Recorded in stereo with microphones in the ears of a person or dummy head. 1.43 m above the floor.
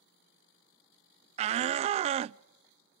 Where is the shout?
40° right (ahead or behind), 0.5 m.